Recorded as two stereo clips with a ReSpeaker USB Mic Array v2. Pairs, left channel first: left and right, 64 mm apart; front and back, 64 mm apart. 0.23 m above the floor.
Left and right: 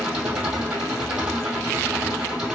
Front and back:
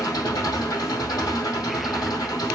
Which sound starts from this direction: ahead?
An engine running, at 0.0 s.